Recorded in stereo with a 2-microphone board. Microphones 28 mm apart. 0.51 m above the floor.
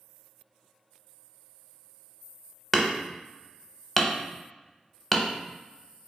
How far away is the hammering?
About 0.6 m.